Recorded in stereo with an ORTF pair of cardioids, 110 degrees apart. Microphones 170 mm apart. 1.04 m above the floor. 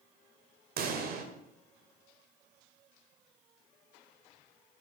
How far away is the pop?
About 2 m.